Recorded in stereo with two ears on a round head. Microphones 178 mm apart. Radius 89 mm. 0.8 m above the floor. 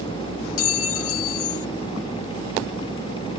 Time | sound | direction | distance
0.6 | a clink | 70° left (ahead or behind) | ?